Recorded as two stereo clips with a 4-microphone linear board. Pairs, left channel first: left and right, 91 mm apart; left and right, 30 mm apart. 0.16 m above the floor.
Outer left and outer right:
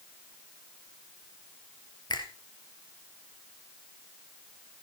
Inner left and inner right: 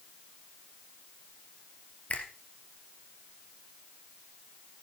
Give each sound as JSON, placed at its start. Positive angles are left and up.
{"t": 2.1, "sound": "a finger snap", "side_deg": 55, "distance_m": 3.0}